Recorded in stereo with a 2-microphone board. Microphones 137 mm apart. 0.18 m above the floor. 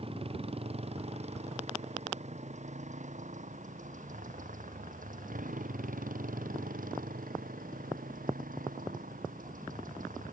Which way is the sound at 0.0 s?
45° right (ahead or behind).